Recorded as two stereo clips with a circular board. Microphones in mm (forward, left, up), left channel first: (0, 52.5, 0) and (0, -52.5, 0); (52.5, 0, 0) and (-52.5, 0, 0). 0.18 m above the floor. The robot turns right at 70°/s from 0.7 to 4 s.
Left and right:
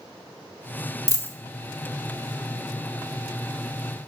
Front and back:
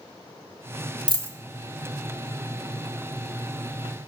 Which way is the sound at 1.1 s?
145° left.